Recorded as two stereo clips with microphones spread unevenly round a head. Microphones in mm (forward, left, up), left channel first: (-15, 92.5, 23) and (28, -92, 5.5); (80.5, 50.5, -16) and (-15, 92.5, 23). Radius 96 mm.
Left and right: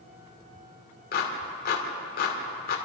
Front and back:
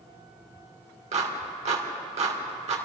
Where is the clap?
150° left, 3 m.